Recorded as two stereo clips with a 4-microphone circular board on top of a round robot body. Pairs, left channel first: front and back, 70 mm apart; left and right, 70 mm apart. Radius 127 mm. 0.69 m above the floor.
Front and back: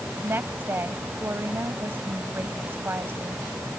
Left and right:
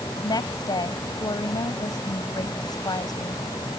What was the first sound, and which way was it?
A woman speaking, 120° left.